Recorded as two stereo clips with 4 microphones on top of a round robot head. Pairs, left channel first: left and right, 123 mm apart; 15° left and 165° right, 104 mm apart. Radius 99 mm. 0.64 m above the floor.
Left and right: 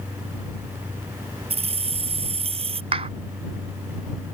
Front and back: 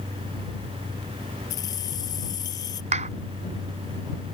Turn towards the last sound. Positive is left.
turn(degrees=-140)